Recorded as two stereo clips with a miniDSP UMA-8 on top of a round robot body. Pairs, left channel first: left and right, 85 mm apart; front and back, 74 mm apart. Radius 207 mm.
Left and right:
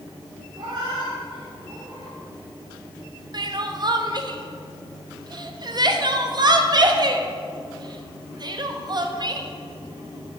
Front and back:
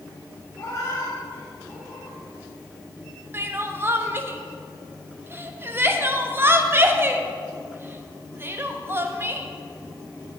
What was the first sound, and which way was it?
A cat meowing, 55° right.